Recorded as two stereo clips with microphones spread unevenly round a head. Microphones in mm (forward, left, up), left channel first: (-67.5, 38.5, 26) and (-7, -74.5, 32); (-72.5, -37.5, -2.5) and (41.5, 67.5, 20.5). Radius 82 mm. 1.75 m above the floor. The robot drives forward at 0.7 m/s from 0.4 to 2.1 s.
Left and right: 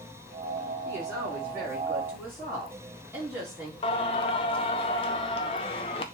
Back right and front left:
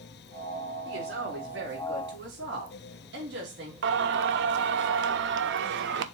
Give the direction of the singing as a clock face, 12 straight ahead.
10 o'clock.